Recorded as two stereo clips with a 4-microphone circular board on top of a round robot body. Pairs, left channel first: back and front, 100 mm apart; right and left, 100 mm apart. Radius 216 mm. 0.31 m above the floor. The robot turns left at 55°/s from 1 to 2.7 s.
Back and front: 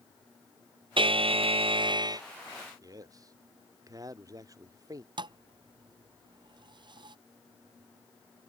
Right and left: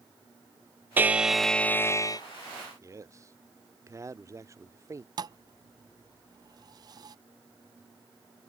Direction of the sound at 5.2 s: 40° left.